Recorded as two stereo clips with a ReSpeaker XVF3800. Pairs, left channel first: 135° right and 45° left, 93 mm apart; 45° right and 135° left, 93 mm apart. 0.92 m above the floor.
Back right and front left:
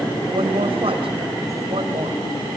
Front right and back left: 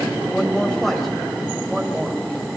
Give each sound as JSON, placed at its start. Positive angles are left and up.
{"t": 0.3, "sound": "a woman speaking", "azimuth_deg": 35, "distance_m": 5.0}